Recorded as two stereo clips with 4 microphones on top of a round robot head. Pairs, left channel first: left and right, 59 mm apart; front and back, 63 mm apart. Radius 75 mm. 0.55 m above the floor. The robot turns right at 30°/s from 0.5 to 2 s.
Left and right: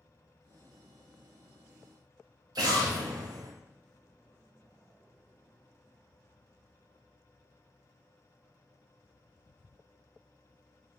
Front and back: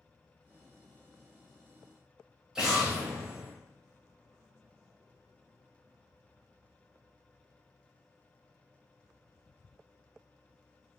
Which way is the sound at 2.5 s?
100° right.